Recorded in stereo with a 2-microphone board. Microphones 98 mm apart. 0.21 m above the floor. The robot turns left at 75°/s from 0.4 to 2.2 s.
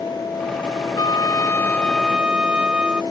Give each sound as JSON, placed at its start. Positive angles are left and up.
{"t": 1.0, "sound": "a trumpet", "azimuth_deg": 80}